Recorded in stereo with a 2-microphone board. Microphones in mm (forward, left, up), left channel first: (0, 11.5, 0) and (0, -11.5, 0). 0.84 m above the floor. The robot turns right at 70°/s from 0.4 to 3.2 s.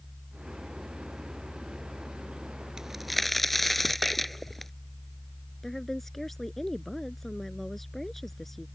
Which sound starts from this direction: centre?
A woman speaking, at 5.6 s.